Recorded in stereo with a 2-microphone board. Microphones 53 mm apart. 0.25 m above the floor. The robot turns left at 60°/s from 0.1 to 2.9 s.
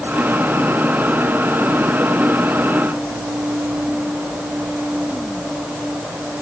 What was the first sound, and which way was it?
Only background noise.